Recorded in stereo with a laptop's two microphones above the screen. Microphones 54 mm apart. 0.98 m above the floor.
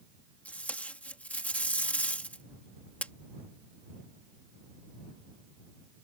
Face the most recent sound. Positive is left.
turn(degrees=25)  # may be behind; listen again after turning